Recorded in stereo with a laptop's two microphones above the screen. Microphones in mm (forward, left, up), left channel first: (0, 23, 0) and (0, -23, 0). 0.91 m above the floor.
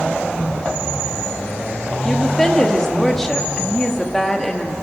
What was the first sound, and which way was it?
A woman speaking, 10° left (ahead or behind).